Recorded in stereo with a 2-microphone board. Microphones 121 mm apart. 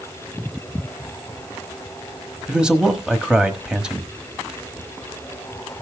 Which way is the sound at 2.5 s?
5° right (ahead or behind).